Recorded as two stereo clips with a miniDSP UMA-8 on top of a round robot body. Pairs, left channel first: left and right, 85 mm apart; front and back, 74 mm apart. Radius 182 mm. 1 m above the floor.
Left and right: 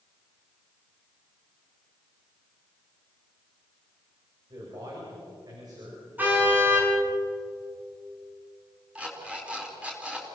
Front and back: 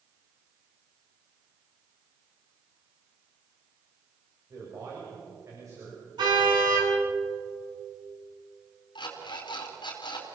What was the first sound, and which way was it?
A man speaking, 135° right.